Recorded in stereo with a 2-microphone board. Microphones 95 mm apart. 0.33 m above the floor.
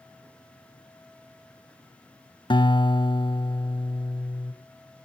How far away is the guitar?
About 1.0 m.